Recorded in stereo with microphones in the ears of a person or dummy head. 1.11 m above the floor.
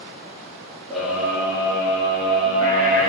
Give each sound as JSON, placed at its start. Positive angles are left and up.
{"t": 0.9, "sound": "a scream", "side_deg": 5, "distance_m": 2.0}